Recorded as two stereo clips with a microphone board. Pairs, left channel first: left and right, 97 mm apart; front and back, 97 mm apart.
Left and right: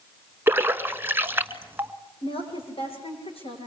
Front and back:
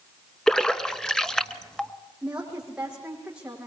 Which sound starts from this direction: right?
A splash, at 0.5 s.